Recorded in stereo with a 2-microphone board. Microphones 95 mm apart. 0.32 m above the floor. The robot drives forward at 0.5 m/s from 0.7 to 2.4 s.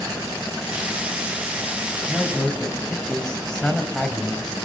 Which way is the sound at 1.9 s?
10° left (ahead or behind).